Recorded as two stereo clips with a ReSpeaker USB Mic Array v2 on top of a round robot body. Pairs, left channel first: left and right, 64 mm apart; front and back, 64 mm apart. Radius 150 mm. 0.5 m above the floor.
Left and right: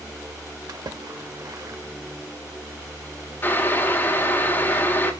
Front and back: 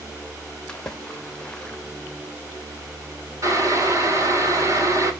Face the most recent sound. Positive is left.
turn(degrees=145)